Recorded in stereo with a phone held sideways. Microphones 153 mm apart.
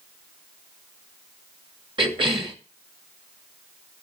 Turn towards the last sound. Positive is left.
turn(degrees=-35)  # may be behind; listen again after turning